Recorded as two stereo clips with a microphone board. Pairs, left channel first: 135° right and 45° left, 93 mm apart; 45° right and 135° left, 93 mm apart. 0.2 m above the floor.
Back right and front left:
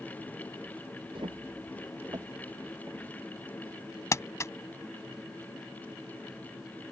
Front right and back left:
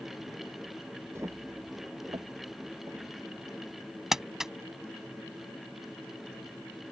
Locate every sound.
1.1 s footsteps: 75° left; by 3.1 s 100° left
4.1 s crumpling: 145° right